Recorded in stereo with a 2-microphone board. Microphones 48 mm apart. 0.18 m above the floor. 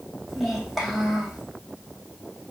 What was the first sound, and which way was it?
A child speaking, centre (ahead or behind).